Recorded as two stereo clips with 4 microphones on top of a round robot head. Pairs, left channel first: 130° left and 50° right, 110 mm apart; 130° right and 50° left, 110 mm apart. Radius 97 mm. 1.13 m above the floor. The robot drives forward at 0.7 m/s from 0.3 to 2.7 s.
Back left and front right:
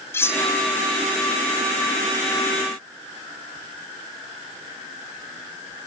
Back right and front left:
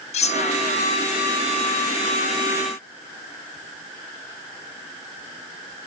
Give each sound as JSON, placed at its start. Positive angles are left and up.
{"t": 0.1, "sound": "cutlery clinking", "azimuth_deg": -160, "distance_m": 0.8}